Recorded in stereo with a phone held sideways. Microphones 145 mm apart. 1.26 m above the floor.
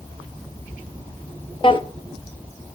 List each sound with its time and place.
1.6 s a drawer: 35° left (ahead or behind), 0.7 m